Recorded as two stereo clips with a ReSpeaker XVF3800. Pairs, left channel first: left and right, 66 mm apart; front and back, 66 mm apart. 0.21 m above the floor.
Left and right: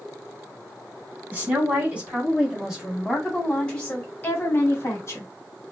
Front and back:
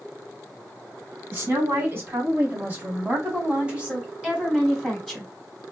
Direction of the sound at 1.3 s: 140° right.